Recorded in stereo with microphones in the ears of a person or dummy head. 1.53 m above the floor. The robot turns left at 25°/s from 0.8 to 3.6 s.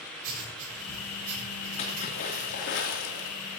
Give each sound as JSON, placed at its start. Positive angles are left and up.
{"t": 0.2, "sound": "writing", "side_deg": -50, "distance_m": 7.0}
{"t": 1.8, "sound": "a splash", "azimuth_deg": 145, "distance_m": 3.0}